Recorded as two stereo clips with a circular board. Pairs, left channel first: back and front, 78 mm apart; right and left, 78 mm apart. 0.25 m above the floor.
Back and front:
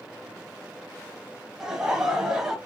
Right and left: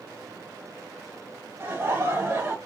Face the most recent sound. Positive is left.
turn(degrees=75)